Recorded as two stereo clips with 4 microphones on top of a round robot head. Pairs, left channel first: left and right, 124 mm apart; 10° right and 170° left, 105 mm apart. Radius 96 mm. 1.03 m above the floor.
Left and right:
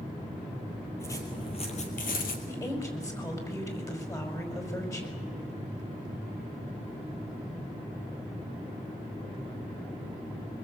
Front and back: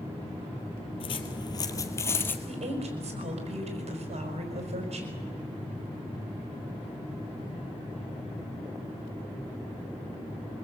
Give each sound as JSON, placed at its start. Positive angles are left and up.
{"t": 1.0, "sound": "footsteps", "azimuth_deg": 15, "distance_m": 1.7}
{"t": 2.5, "sound": "a woman speaking", "azimuth_deg": 155, "distance_m": 5.0}